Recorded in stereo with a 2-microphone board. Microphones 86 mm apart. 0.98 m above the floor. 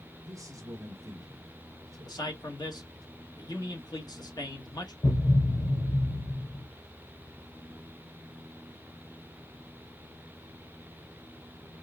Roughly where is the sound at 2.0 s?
Left.